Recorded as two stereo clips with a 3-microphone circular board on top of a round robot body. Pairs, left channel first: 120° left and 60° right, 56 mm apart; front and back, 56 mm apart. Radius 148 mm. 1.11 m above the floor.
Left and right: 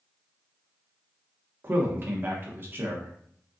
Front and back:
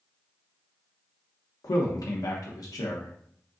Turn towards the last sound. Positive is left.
turn(degrees=-10)